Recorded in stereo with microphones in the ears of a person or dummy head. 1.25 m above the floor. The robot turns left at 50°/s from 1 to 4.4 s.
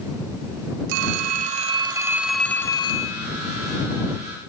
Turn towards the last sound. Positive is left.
turn(degrees=80)